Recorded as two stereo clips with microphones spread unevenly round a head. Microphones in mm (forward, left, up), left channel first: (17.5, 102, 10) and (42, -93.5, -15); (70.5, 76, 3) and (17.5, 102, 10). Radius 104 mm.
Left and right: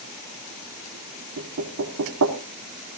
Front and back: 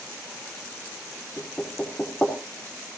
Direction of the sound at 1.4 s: 105° right.